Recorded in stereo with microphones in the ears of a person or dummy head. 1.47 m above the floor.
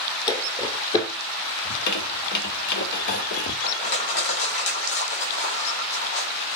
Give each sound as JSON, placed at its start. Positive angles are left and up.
{"t": 0.3, "sound": "footsteps", "side_deg": 25, "distance_m": 2.5}
{"t": 1.6, "sound": "a squeak", "side_deg": 60, "distance_m": 1.9}
{"t": 3.6, "sound": "crushing", "side_deg": 75, "distance_m": 3.0}